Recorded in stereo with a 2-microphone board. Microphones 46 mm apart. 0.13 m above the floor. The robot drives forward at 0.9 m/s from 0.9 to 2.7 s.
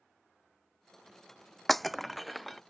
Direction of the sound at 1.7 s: 5° left (ahead or behind).